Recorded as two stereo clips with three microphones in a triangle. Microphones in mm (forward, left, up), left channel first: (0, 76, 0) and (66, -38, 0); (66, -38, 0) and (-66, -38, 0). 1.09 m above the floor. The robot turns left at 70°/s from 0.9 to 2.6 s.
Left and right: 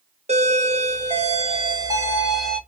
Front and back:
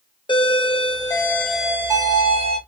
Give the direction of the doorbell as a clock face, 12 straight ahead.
2 o'clock.